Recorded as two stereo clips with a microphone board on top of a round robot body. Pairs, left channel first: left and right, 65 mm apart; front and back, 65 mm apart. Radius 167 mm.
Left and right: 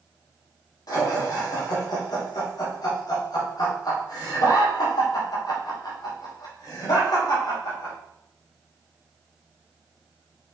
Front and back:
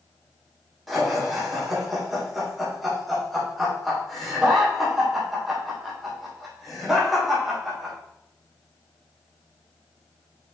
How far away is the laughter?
About 3 m.